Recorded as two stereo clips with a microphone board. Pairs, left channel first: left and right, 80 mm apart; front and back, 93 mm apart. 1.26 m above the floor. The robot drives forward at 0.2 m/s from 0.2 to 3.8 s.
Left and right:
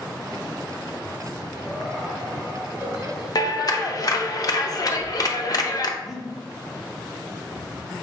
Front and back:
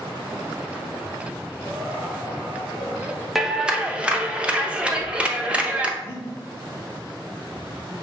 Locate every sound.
1.6 s laughter: 165° right, 1.2 m; by 3.2 s 170° right, 1.5 m
3.4 s a clap: 95° left, 0.5 m; by 5.9 s 105° left, 0.5 m
6.0 s breathing: straight behind, 1.1 m